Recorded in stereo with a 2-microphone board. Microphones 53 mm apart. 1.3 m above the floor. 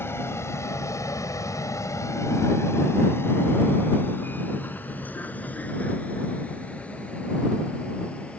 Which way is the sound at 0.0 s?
50° left (ahead or behind).